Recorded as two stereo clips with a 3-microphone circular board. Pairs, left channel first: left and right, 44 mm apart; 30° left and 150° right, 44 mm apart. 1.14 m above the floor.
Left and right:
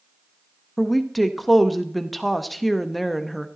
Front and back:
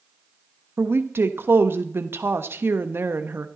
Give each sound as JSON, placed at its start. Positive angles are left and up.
{"t": 0.8, "sound": "a woman speaking", "azimuth_deg": 180, "distance_m": 1.2}